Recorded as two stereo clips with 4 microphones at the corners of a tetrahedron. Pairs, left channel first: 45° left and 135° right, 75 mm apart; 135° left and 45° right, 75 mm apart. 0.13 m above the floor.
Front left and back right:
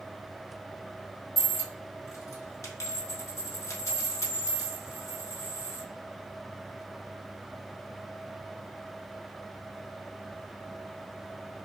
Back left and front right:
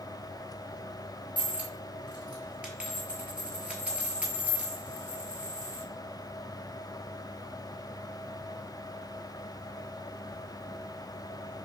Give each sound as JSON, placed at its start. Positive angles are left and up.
{"t": 1.4, "sound": "a dropped coin", "azimuth_deg": 20, "distance_m": 0.8}